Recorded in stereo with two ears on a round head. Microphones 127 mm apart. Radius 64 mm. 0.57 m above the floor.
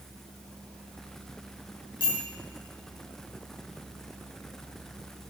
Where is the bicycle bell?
35° left (ahead or behind), 5 m.